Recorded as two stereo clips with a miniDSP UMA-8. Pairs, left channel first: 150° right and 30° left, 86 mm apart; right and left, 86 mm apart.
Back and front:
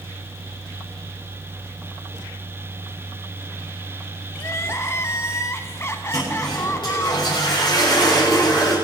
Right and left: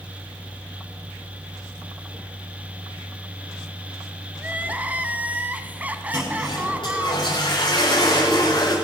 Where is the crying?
160° left, 1.0 m.